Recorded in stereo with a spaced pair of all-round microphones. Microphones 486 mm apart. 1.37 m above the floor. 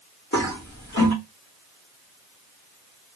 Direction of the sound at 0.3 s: 30° left (ahead or behind).